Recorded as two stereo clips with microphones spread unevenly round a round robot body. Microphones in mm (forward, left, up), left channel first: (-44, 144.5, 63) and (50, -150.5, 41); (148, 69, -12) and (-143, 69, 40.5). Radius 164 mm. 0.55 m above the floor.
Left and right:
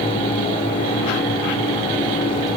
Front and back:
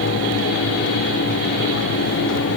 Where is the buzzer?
I don't hear a buzzer.